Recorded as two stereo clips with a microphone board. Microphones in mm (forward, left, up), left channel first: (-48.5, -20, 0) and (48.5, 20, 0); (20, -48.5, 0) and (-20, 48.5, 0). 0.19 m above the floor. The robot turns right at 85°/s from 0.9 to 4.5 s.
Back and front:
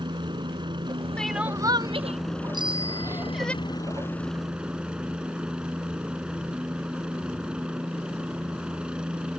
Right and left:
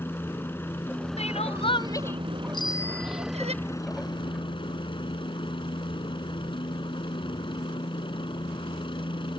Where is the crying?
75° right; by 3.5 s 125° left.